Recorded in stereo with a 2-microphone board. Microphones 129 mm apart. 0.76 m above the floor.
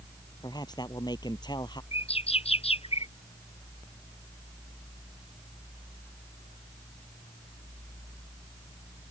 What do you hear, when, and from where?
0.4 s a man speaking: 30° left (ahead or behind); by 1.8 s 35° left (ahead or behind)
1.9 s a bird: 50° left (ahead or behind)